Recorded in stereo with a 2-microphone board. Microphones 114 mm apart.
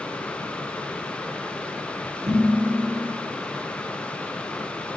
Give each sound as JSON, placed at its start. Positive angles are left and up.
{"t": 2.3, "sound": "dishes clattering", "side_deg": -55, "distance_m": 3.0}